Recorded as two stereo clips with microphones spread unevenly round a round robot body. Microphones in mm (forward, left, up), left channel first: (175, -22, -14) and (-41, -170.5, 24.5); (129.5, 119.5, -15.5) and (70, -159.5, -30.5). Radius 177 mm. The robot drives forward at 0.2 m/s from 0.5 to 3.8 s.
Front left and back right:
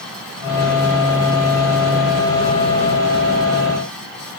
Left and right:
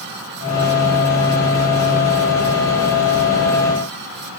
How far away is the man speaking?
No man speaking in this recording.